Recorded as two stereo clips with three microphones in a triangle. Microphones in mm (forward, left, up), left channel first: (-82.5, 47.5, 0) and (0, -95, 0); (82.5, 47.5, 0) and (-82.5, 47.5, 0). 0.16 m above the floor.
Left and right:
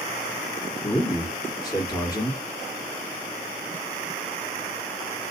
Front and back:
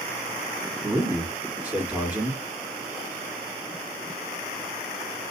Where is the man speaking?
115° left, 1.2 m.